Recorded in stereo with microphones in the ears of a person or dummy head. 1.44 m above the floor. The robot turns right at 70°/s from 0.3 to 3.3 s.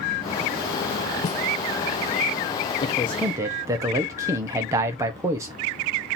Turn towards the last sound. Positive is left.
turn(degrees=-170)